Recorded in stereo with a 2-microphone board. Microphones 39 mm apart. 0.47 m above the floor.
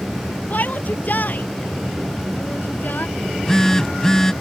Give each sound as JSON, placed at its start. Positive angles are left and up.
{"t": 0.5, "sound": "a shout", "side_deg": 45}
{"t": 3.2, "sound": "a phone buzzing", "side_deg": 10}